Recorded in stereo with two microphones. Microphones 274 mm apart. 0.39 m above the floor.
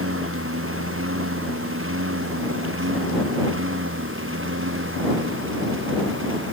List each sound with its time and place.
0.0 s a lawn mower: 50° right (ahead or behind); by 6.5 s 45° right (ahead or behind)